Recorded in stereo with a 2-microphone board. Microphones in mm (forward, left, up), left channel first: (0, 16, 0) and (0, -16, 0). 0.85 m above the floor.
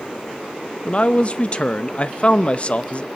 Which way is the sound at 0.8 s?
35° left (ahead or behind).